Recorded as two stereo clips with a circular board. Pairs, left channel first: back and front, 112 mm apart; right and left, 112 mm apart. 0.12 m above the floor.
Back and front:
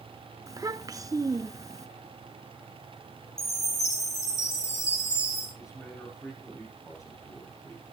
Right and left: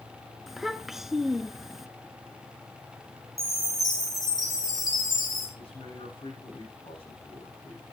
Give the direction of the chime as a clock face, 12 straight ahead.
6 o'clock.